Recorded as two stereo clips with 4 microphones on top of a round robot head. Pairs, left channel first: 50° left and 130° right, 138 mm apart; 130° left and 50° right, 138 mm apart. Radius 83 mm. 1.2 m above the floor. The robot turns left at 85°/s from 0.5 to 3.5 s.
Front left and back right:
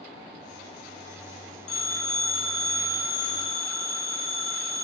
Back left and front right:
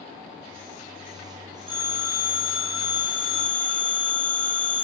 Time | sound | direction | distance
1.7 | a phone ringing | 5° left | 3.5 m